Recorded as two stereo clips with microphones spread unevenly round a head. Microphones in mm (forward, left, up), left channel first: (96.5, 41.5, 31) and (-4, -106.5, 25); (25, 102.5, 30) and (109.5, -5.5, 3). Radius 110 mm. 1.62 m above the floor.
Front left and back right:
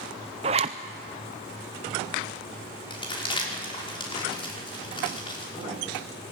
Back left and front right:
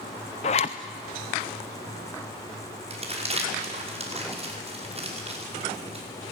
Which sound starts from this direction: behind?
A zipper, at 0.4 s.